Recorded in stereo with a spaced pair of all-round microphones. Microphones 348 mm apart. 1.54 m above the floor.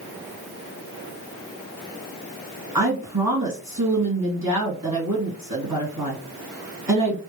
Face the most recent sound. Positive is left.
turn(degrees=-70)  # may be behind; listen again after turning